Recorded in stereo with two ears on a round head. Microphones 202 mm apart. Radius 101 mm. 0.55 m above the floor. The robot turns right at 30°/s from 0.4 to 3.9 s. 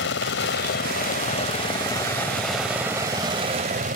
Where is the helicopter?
115° left; by 4.0 s 140° right.